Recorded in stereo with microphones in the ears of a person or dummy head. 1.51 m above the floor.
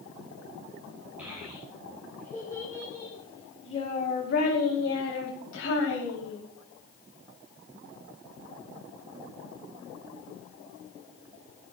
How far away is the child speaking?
About 3.5 m.